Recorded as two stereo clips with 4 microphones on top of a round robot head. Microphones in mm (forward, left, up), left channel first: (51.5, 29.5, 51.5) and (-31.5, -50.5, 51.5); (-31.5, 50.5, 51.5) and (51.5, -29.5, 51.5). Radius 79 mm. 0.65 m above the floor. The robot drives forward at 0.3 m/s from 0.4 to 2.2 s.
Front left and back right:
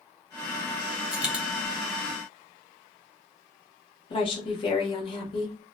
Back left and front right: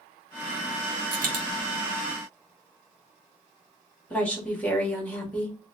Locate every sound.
1.1 s a dropped coin: 50° right, 1.4 m; by 1.4 s 55° right, 1.3 m
4.1 s a woman speaking: 60° left, 1.5 m